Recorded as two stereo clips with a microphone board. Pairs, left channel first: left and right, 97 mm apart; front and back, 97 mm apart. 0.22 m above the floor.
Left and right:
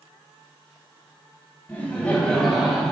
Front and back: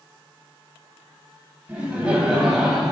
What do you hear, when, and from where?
1.7 s laughter: 125° left, 1.4 m; by 2.9 s 105° right, 1.2 m